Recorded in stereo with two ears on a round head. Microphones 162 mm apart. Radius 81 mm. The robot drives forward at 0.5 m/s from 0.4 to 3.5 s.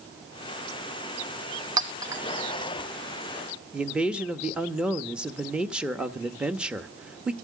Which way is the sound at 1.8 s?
25° right (ahead or behind).